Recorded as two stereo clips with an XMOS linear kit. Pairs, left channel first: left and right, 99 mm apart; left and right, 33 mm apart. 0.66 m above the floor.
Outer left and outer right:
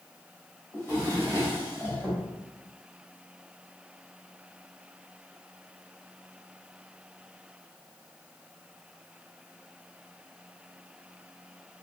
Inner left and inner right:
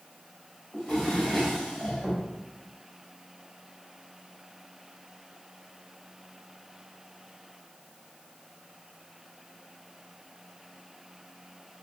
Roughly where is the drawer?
Left.